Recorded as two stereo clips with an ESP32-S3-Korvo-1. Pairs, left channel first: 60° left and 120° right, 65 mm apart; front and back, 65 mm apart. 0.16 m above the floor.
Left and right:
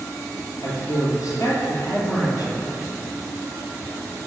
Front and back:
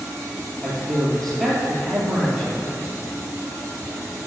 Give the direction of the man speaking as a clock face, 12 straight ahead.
9 o'clock.